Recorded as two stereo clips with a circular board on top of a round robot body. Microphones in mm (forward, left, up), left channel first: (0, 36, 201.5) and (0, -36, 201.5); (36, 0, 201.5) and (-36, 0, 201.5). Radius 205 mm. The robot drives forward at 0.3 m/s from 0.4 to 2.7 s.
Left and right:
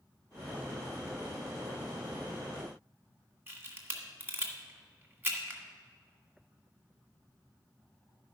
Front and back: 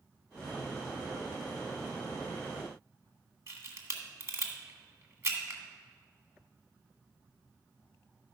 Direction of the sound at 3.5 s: 145° right.